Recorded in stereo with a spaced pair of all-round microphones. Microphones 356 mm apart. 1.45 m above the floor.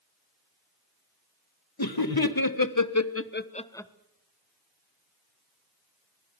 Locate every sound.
1.8 s laughter: 85° left, 1.8 m; by 3.9 s 5° left (ahead or behind), 1.2 m